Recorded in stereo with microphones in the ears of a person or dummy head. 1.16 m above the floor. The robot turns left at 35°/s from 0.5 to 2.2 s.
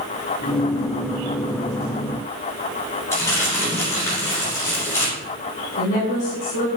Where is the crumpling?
15° left (ahead or behind), 3.5 m.